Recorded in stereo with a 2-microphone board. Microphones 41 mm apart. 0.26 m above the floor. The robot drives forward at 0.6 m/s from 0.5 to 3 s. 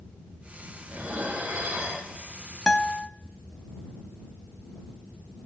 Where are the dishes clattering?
65° right (ahead or behind), 3 m; by 2.1 s 75° right (ahead or behind), 3 m.